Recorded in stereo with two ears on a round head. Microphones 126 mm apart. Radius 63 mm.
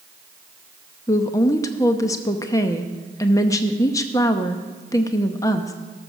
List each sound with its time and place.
1.1 s a woman speaking: 25° left (ahead or behind), 0.7 m